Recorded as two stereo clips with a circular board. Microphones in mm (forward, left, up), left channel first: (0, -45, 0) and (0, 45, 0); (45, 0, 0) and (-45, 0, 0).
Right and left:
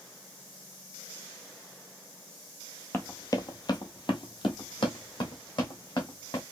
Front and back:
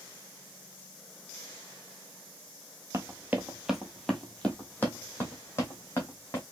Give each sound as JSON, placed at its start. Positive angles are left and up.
{"t": 2.9, "sound": "running footsteps", "azimuth_deg": -140, "distance_m": 0.8}